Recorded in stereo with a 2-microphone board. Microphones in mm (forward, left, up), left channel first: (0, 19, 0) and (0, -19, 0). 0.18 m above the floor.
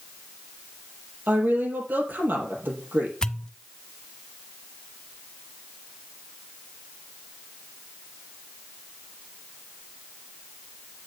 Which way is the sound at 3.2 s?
20° left (ahead or behind).